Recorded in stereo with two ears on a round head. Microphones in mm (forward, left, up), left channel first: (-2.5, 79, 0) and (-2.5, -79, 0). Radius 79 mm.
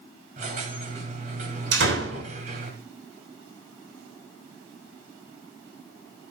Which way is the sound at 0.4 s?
45° right (ahead or behind).